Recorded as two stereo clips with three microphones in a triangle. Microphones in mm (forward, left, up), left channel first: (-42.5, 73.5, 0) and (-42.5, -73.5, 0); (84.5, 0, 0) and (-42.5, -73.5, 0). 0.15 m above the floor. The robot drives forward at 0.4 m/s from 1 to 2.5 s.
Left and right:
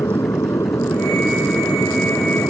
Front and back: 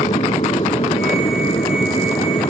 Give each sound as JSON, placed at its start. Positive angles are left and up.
{"t": 0.0, "sound": "an aircraft", "azimuth_deg": 30}